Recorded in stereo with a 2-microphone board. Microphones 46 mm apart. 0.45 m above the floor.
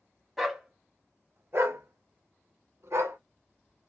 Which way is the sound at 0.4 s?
5° right (ahead or behind).